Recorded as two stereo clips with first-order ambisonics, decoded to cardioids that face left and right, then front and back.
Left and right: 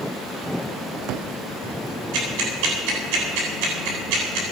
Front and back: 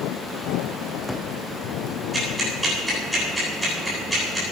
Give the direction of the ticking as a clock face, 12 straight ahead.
3 o'clock.